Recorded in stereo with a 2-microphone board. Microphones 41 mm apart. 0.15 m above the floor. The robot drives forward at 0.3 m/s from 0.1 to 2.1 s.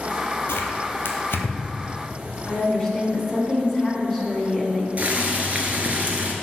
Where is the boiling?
35° right (ahead or behind), 0.8 m.